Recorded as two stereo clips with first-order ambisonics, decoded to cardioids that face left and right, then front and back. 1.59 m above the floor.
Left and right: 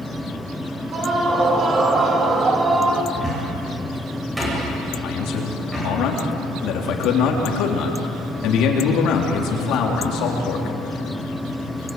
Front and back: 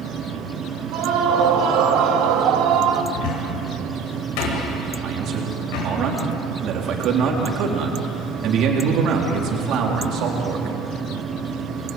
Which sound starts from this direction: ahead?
A cupboard door, at 3.1 s.